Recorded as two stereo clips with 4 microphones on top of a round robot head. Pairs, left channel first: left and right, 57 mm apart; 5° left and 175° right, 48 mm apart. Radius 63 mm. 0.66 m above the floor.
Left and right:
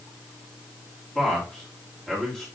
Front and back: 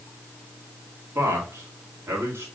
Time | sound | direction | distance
1.1 | a man speaking | 170° left | 1.9 m